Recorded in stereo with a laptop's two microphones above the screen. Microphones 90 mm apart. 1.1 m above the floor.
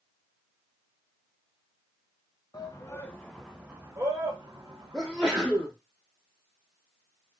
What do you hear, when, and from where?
2.5 s a shout: 40° left (ahead or behind), 0.9 m; by 5.7 s 60° right (ahead or behind), 1.7 m
4.9 s a sneeze: centre (ahead or behind), 0.5 m